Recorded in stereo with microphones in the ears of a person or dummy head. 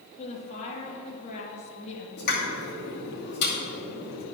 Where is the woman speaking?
40° left (ahead or behind), 1.8 m.